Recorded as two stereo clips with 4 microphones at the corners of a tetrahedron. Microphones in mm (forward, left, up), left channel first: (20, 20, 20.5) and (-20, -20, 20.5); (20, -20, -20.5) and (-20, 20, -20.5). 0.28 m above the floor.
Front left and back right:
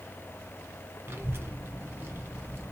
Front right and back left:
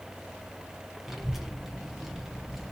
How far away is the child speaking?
About 0.6 m.